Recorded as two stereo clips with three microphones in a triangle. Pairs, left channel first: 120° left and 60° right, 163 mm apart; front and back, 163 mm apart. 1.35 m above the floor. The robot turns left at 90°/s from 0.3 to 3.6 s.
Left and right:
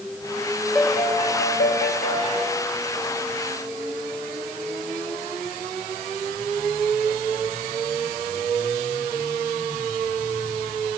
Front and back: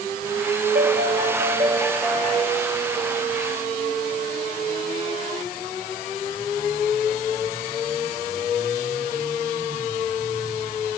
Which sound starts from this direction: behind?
A piano, at 0.8 s.